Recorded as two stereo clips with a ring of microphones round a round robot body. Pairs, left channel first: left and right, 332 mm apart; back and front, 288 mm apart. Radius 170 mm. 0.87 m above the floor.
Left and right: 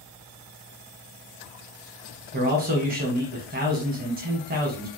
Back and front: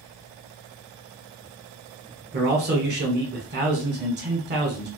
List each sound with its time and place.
2.3 s a man speaking: 35° right, 1.2 m